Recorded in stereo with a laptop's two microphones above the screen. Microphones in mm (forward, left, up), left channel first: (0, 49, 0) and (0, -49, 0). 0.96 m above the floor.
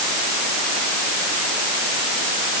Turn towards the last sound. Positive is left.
No sound to turn to.